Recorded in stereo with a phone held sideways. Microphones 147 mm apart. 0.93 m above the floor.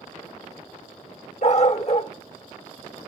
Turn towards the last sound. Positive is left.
turn(degrees=50)  # may be behind; listen again after turning